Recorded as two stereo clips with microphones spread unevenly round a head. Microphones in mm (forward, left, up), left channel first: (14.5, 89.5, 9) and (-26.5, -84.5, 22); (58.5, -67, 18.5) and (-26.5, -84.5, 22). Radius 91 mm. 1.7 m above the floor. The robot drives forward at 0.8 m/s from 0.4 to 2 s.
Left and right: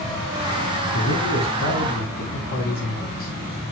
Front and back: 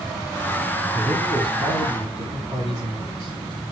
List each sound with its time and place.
0.9 s a man speaking: 115° left, 5 m; by 3.3 s 120° left, 5.5 m